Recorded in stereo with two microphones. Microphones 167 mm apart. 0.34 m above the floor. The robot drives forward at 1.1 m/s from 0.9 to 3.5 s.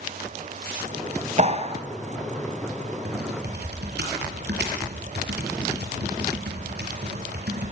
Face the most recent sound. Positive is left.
turn(degrees=-80)